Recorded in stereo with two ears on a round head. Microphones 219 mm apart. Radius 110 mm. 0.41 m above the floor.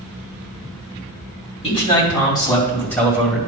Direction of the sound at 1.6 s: 25° left (ahead or behind).